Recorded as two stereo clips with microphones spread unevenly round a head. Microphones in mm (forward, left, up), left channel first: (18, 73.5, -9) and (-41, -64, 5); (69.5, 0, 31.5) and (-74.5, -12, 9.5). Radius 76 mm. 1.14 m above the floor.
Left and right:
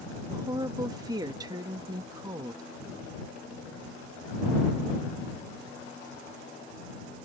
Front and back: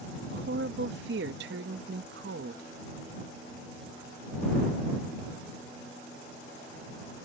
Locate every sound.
0.3 s a woman speaking: straight behind